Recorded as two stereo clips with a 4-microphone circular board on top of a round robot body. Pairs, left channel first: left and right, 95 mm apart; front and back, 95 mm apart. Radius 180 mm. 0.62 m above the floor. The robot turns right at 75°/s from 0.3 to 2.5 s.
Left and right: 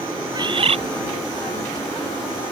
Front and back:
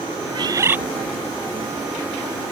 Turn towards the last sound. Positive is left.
turn(degrees=25)